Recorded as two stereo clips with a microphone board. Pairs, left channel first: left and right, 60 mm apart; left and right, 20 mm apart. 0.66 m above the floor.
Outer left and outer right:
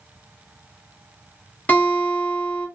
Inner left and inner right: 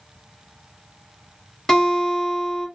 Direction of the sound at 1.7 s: 25° left (ahead or behind).